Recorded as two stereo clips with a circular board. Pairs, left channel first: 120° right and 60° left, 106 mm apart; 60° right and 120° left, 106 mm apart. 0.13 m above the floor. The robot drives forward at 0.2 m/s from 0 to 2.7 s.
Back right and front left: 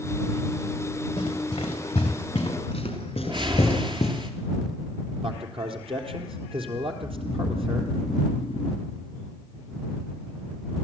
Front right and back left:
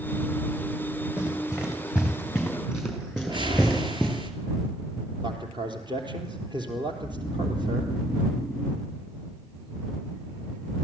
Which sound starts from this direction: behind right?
Snoring, at 7.0 s.